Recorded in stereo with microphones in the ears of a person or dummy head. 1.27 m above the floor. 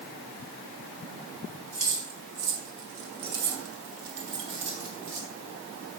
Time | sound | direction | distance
1.7 | keys jangling | 40° right (ahead or behind) | 1.8 m